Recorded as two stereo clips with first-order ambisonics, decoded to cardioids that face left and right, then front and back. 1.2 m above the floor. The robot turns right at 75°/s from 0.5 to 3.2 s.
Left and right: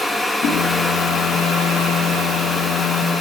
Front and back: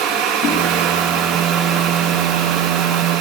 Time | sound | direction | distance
0.4 | a whoosh | 40° left | 7 m